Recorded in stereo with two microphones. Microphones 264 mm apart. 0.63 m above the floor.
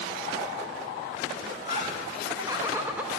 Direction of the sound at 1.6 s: 20° right (ahead or behind).